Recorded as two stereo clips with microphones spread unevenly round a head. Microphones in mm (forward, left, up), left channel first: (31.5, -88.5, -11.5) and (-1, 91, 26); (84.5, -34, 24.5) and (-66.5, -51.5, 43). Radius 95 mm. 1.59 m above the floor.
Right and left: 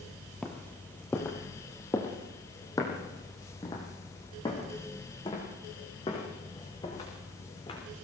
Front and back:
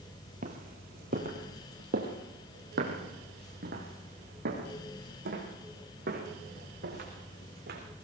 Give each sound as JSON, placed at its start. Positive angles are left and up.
{"t": 0.4, "sound": "footsteps", "azimuth_deg": -175, "distance_m": 2.5}